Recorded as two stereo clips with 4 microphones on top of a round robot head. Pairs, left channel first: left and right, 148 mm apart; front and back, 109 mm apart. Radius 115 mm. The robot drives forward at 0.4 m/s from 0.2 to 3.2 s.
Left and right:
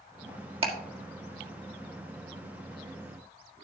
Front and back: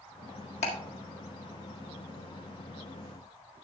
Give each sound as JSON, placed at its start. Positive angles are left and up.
{"t": 0.6, "sound": "ticking", "azimuth_deg": -40, "distance_m": 1.8}